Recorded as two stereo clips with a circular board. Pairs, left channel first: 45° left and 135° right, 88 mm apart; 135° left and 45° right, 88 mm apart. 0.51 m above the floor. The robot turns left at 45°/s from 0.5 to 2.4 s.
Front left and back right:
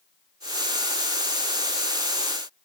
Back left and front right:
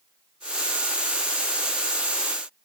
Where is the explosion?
I don't hear an explosion.